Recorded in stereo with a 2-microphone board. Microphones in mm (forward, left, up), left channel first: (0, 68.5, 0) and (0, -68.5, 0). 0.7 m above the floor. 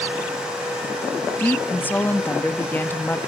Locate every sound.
1.4 s a woman speaking: 15° left (ahead or behind), 1.0 m